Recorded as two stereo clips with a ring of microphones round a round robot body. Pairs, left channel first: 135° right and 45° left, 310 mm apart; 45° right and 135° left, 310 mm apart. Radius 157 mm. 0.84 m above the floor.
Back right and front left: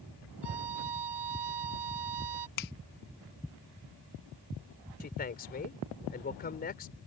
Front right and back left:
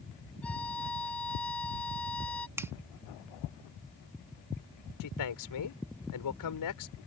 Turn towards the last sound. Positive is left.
turn(degrees=-70)